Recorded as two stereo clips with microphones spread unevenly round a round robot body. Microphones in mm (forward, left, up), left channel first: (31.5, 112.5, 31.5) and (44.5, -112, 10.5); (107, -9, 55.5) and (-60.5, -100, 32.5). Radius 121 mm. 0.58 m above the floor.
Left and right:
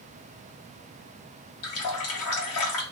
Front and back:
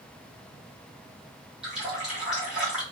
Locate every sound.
1.6 s a running tap: 125° left, 1.0 m